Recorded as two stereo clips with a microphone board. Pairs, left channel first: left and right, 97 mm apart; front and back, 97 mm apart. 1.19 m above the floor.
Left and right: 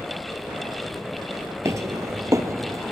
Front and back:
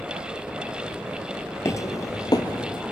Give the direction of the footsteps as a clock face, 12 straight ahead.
2 o'clock.